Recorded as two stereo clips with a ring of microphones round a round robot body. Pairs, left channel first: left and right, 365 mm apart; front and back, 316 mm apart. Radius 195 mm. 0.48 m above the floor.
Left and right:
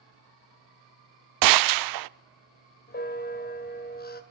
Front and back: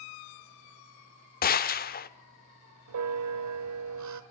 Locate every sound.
1.4 s a gunshot: 60° right, 0.6 m
2.9 s a bell: 155° left, 1.9 m